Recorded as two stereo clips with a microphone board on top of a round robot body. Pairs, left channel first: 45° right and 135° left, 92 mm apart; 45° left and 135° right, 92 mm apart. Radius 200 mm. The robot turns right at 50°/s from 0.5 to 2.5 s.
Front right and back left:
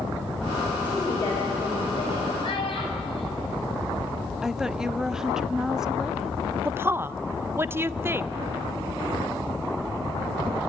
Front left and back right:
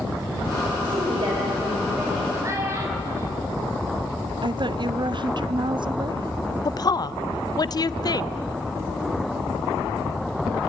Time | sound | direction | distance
0.8 | a woman speaking | 115° right | 4.5 m
2.4 | a child speaking | 75° right | 5 m
4.4 | a woman speaking | 140° right | 0.9 m
6.7 | a woman speaking | 75° left | 0.6 m